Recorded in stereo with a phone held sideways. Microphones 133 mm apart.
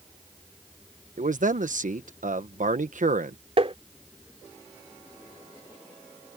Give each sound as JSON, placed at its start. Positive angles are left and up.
{"t": 1.2, "sound": "a man speaking", "side_deg": -75}
{"t": 3.6, "sound": "tapping", "side_deg": -45}